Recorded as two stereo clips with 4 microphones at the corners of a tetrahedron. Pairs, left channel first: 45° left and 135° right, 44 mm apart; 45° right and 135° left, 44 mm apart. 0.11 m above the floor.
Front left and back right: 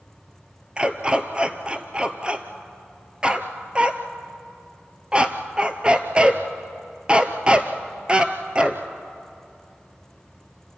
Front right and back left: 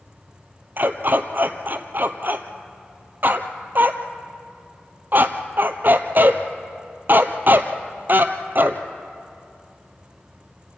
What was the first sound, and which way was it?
A dog barking, 160° left.